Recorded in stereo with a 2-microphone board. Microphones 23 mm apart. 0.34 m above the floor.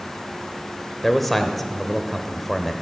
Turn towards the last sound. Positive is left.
turn(degrees=5)  # may be behind; listen again after turning